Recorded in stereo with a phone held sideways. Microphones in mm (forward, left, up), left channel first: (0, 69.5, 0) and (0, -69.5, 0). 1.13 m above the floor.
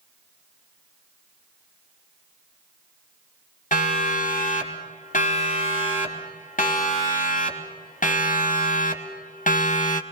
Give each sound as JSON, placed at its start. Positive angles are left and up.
{"t": 3.7, "sound": "a siren", "side_deg": 60, "distance_m": 4.5}